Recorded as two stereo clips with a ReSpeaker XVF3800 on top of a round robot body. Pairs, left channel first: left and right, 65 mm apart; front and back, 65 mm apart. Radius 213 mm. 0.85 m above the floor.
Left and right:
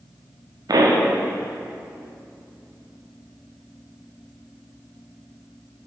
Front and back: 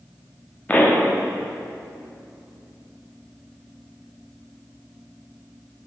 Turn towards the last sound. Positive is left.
turn(degrees=-65)